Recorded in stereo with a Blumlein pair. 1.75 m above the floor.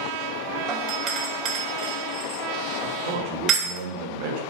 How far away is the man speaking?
About 2 m.